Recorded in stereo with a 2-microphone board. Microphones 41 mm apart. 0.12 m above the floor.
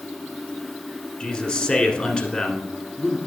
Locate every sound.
1.2 s a man speaking: 25° left (ahead or behind), 1.5 m